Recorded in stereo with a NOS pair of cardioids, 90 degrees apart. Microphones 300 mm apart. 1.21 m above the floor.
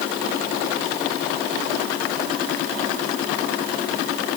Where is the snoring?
No snoring in this recording.